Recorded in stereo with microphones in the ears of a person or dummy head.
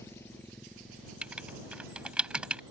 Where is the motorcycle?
15° left (ahead or behind); by 2.7 s 25° right (ahead or behind).